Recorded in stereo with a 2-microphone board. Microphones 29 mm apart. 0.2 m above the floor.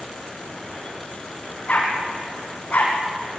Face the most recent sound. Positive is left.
turn(degrees=55)  # may be behind; listen again after turning